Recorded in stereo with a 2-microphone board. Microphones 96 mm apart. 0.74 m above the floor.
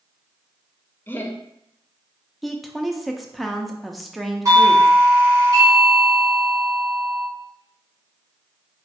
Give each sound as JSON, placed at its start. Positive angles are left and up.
{"t": 1.1, "sound": "laughter", "side_deg": 20, "distance_m": 0.6}
{"t": 2.4, "sound": "a woman speaking", "side_deg": 0, "distance_m": 0.6}
{"t": 4.5, "sound": "a doorbell", "side_deg": -35, "distance_m": 1.9}